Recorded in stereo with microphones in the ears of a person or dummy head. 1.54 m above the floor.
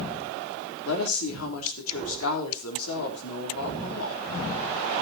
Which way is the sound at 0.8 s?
85° left.